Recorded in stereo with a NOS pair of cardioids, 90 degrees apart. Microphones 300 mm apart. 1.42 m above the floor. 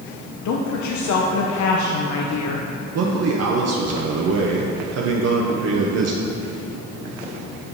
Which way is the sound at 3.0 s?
55° right.